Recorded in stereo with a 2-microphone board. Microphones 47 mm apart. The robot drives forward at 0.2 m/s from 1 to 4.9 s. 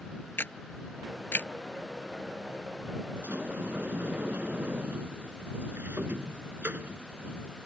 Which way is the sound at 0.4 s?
45° left (ahead or behind).